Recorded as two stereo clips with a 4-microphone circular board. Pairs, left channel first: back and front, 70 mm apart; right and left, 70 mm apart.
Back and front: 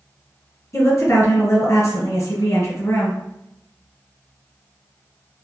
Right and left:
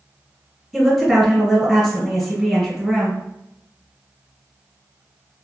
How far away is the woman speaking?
About 1.4 m.